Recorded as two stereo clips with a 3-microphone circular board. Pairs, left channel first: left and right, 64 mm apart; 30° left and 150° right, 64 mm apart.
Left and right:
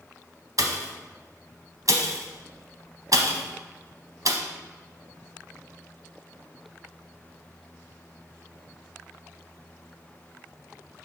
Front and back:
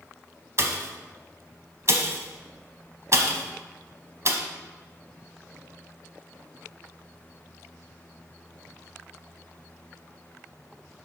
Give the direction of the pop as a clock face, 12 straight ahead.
4 o'clock.